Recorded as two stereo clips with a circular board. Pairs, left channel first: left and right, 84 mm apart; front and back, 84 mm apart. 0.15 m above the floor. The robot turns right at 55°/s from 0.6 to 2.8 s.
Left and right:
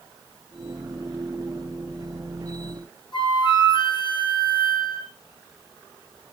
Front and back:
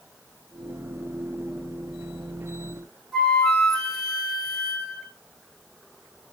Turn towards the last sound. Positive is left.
turn(degrees=85)